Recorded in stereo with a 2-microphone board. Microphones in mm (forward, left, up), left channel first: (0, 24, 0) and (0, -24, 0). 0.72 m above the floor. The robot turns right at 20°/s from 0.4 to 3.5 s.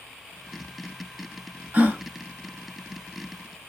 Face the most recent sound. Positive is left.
turn(degrees=-40)  # may be behind; listen again after turning